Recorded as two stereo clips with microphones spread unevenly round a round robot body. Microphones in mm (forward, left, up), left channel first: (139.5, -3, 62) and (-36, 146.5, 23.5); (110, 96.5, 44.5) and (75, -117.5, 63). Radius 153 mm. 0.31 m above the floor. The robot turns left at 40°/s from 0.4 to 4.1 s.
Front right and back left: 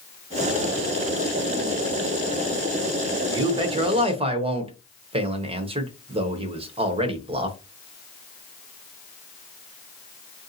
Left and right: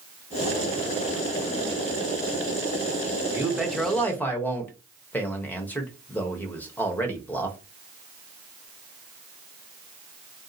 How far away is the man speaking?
About 0.9 m.